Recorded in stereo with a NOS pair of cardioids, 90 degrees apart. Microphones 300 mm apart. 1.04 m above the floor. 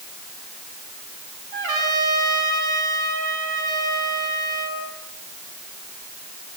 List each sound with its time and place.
1.5 s a trumpet: 65° right, 7 m